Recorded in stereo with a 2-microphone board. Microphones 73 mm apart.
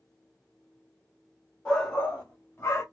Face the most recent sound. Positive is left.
turn(degrees=30)  # may be behind; listen again after turning